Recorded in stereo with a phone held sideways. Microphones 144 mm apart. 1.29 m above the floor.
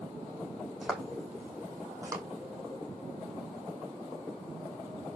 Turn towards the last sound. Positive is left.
turn(degrees=-25)  # may be behind; listen again after turning